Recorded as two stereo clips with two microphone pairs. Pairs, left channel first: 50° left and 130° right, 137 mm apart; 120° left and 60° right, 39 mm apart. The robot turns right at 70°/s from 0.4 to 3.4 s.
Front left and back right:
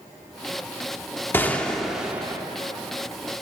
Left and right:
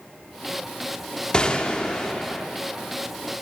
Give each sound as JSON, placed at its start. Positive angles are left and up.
{"t": 1.3, "sound": "a gunshot", "azimuth_deg": 100, "distance_m": 0.6}